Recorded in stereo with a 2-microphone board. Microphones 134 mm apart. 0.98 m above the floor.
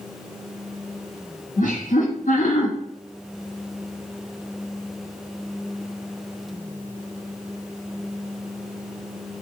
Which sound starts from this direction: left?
Laughter, at 1.6 s.